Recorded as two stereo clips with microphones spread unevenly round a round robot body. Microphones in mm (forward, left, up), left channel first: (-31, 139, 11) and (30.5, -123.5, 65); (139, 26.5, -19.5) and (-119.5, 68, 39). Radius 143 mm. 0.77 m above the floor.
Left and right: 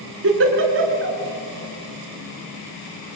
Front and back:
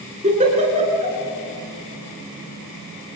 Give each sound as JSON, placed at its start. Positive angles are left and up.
{"t": 0.2, "sound": "a giggle", "azimuth_deg": -120, "distance_m": 3.5}